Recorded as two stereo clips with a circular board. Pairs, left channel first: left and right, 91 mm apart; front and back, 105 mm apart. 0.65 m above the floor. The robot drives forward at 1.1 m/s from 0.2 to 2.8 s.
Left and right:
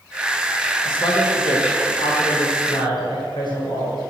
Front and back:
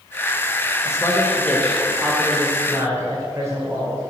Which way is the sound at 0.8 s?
60° left.